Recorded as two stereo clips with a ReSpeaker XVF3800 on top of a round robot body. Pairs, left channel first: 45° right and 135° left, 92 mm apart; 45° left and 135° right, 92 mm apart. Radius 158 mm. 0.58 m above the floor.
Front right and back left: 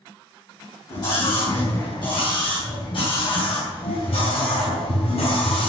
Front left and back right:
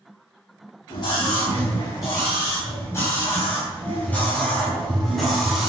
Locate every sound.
0.9 s a scream: straight ahead, 4.5 m; by 5.7 s 50° right, 3.5 m